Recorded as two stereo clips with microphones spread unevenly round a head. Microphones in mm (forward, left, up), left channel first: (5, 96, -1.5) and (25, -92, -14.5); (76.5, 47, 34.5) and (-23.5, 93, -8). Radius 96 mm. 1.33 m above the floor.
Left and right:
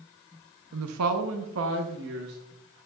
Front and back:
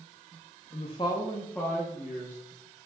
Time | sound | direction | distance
0.7 | a woman speaking | 80° right | 0.8 m